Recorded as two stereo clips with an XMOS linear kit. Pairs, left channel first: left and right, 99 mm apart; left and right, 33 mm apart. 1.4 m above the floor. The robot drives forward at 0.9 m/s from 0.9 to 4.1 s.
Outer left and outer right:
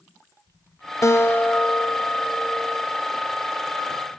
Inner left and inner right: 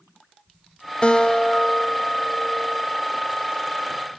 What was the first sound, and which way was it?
A guitar, 30° left (ahead or behind).